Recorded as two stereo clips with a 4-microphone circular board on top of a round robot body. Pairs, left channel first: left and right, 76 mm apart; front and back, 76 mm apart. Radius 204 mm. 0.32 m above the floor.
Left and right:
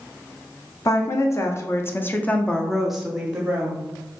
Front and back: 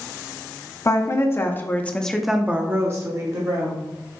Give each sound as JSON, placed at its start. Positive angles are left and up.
{"t": 0.8, "sound": "a woman speaking", "azimuth_deg": 45, "distance_m": 1.4}